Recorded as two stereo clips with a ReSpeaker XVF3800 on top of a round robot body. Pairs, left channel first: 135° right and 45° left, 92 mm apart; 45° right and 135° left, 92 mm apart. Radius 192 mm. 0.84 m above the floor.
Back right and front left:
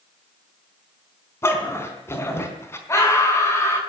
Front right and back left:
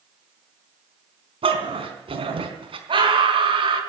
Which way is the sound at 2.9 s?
165° left.